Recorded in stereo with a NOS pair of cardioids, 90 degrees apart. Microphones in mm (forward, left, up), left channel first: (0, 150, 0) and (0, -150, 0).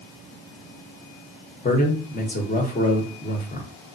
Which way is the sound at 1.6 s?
30° left.